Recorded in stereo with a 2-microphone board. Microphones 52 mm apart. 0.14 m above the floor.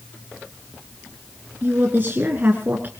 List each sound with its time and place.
1.6 s a woman speaking: 35° right (ahead or behind), 2 m